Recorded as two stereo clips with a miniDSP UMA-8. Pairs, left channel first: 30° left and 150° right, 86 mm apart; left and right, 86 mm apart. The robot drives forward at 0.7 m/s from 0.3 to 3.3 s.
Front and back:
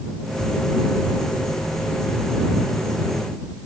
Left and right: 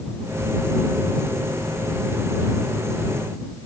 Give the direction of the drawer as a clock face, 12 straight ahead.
I don't hear a drawer.